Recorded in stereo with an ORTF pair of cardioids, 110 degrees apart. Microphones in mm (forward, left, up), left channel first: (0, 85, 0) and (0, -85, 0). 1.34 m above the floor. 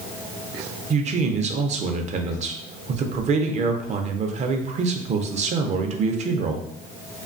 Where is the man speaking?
45° right, 0.5 m.